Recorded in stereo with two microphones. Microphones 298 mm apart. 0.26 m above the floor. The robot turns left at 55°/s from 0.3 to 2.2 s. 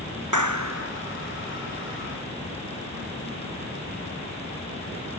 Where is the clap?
100° right; by 0.9 s 130° right.